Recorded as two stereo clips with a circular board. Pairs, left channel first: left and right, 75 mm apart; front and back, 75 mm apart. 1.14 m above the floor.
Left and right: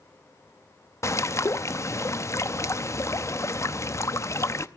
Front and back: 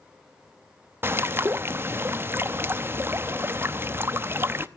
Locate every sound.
1.0 s a bird: 130° left, 0.7 m